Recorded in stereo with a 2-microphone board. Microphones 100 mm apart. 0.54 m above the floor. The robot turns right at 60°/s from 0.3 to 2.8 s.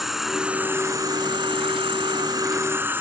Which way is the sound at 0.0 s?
175° right.